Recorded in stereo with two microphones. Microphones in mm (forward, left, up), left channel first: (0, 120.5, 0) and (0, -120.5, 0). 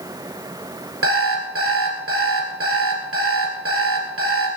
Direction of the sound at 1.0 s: 65° right (ahead or behind).